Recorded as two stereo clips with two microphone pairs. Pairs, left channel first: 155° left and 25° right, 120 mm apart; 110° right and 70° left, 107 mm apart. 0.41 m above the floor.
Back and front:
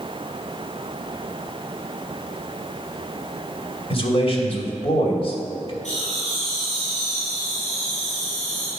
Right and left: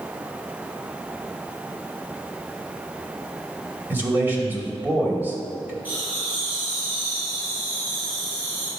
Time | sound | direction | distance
3.9 | a man speaking | 140° left | 2.5 m
5.8 | laughter | 145° left | 3.5 m